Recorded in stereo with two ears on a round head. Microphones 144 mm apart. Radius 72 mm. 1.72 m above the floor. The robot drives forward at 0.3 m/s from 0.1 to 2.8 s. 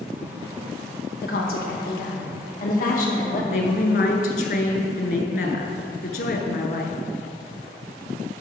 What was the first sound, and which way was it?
A woman speaking, 70° left (ahead or behind).